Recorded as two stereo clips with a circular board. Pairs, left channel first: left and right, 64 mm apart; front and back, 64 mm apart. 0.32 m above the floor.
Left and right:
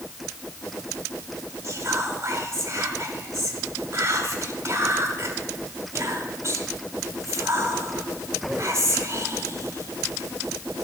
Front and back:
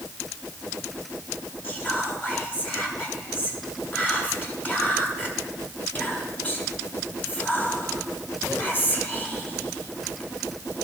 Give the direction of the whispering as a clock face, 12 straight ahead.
2 o'clock.